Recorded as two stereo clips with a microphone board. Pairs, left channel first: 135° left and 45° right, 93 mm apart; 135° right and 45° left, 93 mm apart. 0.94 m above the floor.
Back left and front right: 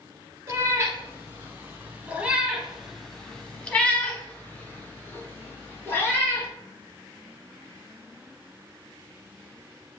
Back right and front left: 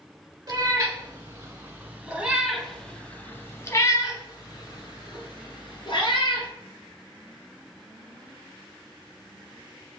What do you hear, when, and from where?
0.5 s a cat meowing: 10° left, 1.4 m; by 6.5 s 165° right, 2 m